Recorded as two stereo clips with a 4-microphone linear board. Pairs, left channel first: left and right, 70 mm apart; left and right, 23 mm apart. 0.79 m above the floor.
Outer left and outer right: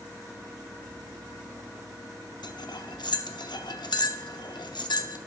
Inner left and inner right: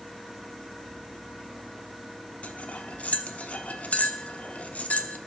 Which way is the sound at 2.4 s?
80° left.